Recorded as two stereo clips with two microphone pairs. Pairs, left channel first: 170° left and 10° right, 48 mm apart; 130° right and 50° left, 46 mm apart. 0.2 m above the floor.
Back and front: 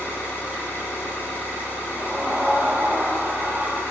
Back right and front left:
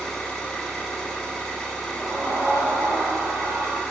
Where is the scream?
40° left, 5 m.